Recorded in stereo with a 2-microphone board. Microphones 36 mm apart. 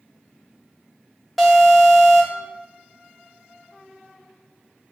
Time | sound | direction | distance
1.4 | an alarm | centre (ahead or behind) | 1.9 m